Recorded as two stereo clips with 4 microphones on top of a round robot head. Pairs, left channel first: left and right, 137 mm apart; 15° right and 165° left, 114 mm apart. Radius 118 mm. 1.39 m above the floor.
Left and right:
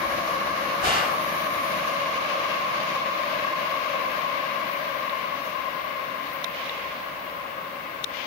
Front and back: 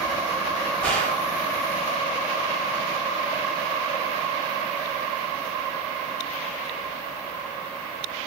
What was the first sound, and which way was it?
A gunshot, 95° right.